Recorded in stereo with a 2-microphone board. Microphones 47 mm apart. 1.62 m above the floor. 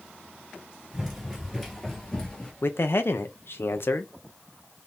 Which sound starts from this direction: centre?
Running footsteps, at 0.9 s.